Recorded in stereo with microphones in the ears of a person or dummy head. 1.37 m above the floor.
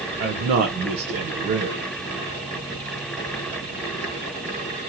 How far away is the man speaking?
About 0.5 m.